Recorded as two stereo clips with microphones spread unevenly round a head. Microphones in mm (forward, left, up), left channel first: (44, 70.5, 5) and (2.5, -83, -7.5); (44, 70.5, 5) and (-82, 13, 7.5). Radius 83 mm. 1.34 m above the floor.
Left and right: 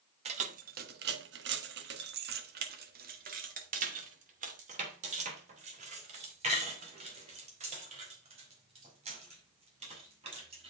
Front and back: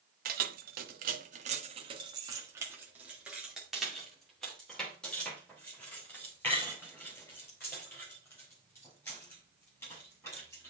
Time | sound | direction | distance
0.2 | keys jangling | 160° right | 1.1 m